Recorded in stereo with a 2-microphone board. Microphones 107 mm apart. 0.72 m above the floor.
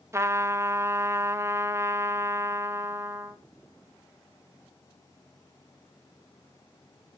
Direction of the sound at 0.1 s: 25° right (ahead or behind).